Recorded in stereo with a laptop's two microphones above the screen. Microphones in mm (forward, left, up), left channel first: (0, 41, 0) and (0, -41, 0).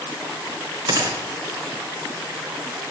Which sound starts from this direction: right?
A gunshot, at 0.9 s.